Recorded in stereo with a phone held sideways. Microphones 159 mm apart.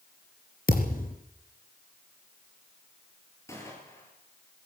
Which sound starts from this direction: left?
A thud, at 0.7 s.